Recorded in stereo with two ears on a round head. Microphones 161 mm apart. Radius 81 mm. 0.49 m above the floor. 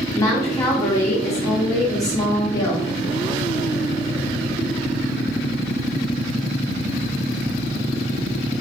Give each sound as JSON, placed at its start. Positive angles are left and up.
{"t": 0.1, "sound": "a woman speaking", "side_deg": 20, "distance_m": 0.7}